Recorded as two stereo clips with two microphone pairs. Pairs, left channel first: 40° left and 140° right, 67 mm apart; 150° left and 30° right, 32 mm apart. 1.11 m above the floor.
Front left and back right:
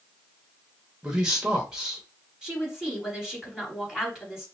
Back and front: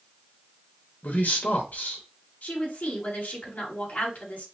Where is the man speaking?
140° left, 1.4 m.